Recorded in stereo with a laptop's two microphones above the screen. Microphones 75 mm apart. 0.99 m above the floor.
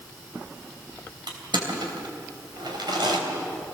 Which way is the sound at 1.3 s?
80° right.